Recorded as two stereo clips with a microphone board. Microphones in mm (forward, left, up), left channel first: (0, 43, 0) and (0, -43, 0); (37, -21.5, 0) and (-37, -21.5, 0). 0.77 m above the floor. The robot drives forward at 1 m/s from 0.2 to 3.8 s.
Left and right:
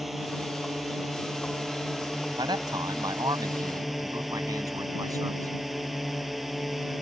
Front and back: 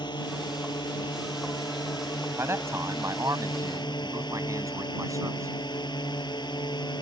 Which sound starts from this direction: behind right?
A man speaking, at 2.4 s.